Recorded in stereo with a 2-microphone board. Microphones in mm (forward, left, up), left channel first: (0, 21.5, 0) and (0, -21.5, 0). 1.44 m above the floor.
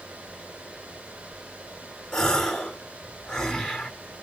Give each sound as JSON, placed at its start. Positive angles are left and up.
{"t": 2.1, "sound": "a gasp", "side_deg": 15, "distance_m": 1.4}